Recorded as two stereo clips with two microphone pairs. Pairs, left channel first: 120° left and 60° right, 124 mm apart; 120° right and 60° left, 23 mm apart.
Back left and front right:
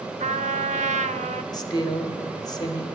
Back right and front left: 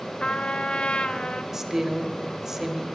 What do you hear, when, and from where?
0.2 s a trumpet: 85° right, 0.6 m
1.5 s a woman speaking: 120° left, 1.2 m